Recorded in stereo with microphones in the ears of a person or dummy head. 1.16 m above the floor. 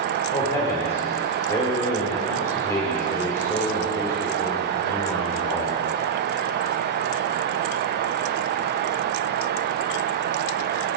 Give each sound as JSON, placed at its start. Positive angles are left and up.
{"t": 0.3, "sound": "a man speaking", "side_deg": 15, "distance_m": 4.5}